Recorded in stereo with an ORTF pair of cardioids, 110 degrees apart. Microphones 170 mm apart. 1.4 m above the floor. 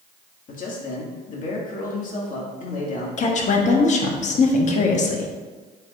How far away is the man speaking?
About 2 m.